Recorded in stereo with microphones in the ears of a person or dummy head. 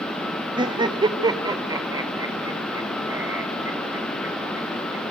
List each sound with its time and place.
0.6 s laughter: 20° right (ahead or behind), 1.4 m; by 5.0 s 10° right (ahead or behind), 5.5 m